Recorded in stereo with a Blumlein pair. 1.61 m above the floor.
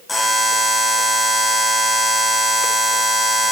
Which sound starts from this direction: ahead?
A buzzer, at 0.1 s.